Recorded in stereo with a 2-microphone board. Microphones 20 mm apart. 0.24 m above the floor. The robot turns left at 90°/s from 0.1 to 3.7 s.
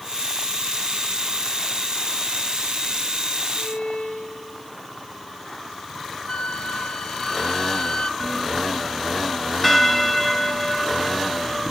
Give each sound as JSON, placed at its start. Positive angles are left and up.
{"t": 3.5, "sound": "a violin", "side_deg": 65, "distance_m": 5.0}
{"t": 6.3, "sound": "a flute", "side_deg": 55, "distance_m": 0.9}
{"t": 8.2, "sound": "a bell", "side_deg": 10, "distance_m": 2.0}